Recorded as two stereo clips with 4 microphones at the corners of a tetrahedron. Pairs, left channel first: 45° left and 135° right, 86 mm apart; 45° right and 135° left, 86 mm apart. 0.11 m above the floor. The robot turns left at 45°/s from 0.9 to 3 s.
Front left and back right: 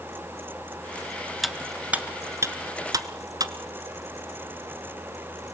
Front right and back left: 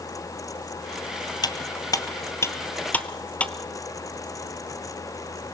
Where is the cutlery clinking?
45° right, 1.2 m; by 3.5 s 115° right, 1.2 m.